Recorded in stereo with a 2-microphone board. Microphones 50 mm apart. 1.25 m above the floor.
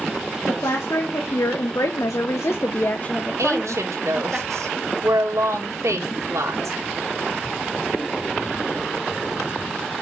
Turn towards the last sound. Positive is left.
turn(degrees=-75)  # may be behind; listen again after turning